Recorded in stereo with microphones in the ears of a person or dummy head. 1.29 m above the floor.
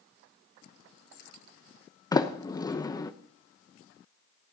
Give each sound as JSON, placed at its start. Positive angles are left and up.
{"t": 2.1, "sound": "a sliding door", "side_deg": 20, "distance_m": 0.9}